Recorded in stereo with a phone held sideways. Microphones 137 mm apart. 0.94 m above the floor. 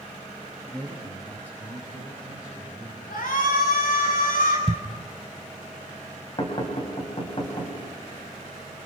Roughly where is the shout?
Left.